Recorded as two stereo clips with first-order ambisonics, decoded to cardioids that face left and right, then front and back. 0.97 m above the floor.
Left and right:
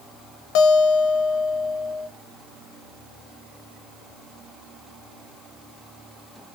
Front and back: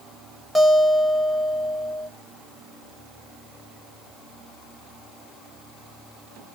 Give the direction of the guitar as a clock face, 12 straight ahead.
9 o'clock.